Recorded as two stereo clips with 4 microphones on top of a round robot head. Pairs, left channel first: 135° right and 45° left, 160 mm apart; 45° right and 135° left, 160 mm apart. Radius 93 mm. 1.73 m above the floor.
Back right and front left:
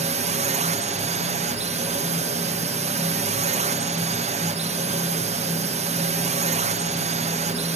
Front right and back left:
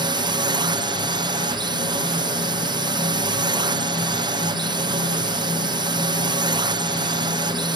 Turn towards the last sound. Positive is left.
turn(degrees=80)